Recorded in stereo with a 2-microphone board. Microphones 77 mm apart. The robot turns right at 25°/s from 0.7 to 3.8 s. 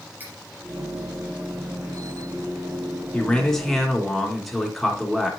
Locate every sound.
0.2 s cutlery clinking: 25° right (ahead or behind), 3.5 m
3.1 s a man speaking: 15° left (ahead or behind), 2.5 m; by 5.3 s centre (ahead or behind), 2.5 m